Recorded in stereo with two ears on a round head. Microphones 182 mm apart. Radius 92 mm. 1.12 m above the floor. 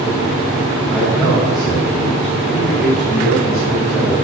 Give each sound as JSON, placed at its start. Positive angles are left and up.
{"t": 0.9, "sound": "a man speaking", "side_deg": 0, "distance_m": 4.5}